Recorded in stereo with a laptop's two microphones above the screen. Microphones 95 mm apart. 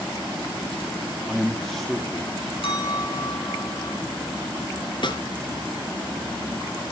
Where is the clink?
70° left (ahead or behind), 5 m.